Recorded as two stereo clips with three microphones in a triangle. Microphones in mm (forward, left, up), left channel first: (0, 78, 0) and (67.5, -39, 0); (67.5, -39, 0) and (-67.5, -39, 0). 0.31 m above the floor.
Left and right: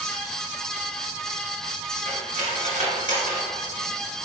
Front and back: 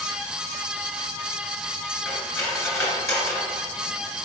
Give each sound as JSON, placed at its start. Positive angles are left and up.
{"t": 2.0, "sound": "cutlery clinking", "azimuth_deg": -70, "distance_m": 3.0}